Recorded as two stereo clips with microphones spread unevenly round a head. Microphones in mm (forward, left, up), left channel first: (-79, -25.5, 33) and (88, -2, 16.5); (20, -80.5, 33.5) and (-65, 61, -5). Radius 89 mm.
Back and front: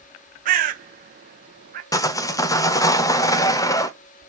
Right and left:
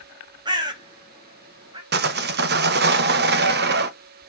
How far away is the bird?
About 1.3 m.